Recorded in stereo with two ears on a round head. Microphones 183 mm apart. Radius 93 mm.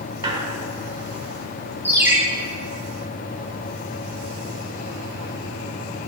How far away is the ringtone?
About 2.0 m.